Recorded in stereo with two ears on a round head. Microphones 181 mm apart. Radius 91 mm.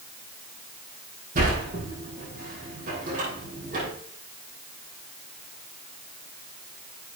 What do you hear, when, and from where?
1.4 s a sliding door: 45° right (ahead or behind), 4.5 m